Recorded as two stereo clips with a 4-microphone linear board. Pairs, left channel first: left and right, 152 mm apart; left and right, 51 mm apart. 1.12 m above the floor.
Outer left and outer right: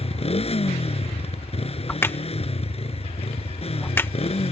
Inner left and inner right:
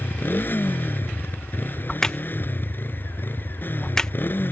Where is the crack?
15° left (ahead or behind).